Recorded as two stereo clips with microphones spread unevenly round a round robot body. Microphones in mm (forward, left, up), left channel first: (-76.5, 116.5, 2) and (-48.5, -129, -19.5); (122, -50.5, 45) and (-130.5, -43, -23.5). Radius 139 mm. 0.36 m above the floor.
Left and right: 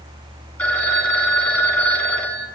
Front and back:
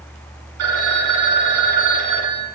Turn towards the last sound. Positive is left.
turn(degrees=180)